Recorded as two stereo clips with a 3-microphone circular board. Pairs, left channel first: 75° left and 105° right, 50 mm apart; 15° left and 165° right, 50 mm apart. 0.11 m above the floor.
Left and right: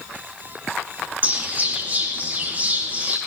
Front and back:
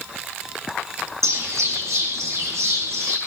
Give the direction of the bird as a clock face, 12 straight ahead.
5 o'clock.